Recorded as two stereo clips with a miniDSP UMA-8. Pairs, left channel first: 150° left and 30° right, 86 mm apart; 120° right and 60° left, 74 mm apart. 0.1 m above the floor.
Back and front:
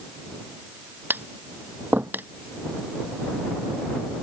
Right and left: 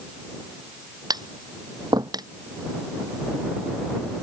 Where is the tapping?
35° left.